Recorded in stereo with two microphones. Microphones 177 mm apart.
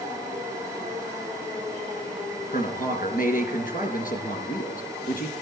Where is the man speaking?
50° left (ahead or behind), 3 m.